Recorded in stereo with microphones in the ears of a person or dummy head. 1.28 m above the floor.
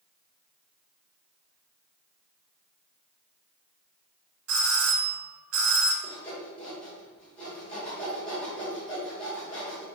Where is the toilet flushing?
I don't hear a toilet flushing.